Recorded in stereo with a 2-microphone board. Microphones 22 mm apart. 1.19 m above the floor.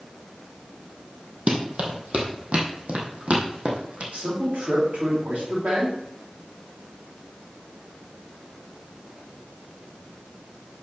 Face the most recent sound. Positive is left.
turn(degrees=-75)  # may be behind; listen again after turning